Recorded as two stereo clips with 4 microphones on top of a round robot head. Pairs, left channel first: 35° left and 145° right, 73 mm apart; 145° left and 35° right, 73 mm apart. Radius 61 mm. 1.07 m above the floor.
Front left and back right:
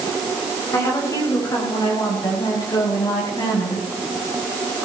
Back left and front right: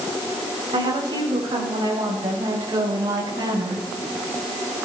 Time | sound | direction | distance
0.7 | a woman speaking | 20° right | 5.5 m